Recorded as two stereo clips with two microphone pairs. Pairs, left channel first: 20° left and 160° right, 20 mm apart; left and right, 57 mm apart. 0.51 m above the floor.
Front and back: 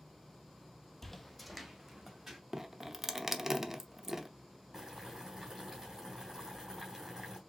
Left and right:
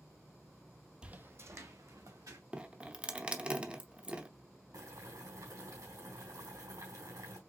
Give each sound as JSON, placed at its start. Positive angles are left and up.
{"t": 1.0, "sound": "footsteps", "azimuth_deg": -25, "distance_m": 0.6}
{"t": 2.5, "sound": "dripping", "azimuth_deg": -135, "distance_m": 0.7}
{"t": 4.7, "sound": "boiling", "azimuth_deg": -90, "distance_m": 3.0}